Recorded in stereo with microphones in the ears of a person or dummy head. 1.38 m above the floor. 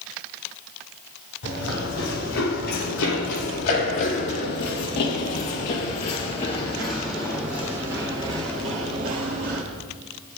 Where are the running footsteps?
70° left (ahead or behind), 4 m; by 9.6 s 50° right (ahead or behind), 2 m.